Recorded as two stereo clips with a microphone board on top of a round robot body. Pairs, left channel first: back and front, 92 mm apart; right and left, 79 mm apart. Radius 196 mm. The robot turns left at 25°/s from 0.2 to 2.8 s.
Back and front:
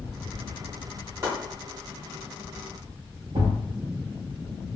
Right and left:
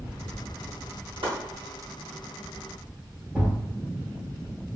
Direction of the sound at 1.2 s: 65° left.